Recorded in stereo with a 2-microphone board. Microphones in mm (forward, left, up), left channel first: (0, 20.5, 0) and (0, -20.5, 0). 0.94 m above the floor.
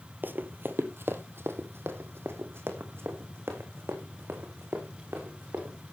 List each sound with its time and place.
0.2 s running footsteps: 50° right (ahead or behind), 1.3 m; by 5.7 s 75° right (ahead or behind), 5.5 m